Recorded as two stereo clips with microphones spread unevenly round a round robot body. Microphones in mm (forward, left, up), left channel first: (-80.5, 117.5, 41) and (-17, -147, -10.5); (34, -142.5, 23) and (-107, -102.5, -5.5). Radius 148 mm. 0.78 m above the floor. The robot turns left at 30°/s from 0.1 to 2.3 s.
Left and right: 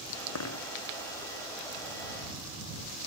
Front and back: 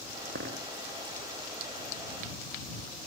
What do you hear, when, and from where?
0.3 s a dropped coin: 125° left; by 0.7 s 120° left